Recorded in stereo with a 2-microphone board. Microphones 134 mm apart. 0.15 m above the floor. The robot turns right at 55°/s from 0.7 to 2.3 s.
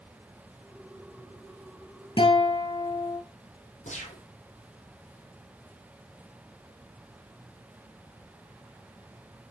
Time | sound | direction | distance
2.2 | a guitar | 40° left (ahead or behind) | 1.2 m
3.9 | a gunshot | 60° left (ahead or behind) | 2.5 m